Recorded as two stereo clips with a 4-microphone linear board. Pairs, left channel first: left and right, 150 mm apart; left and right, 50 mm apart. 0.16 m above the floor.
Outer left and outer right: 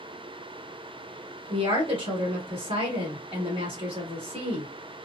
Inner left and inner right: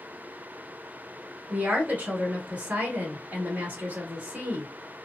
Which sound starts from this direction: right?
A woman speaking, at 1.5 s.